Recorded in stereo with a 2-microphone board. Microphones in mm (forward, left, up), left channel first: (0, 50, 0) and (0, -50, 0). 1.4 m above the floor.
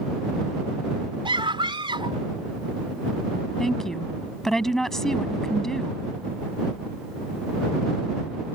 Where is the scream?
60° right (ahead or behind).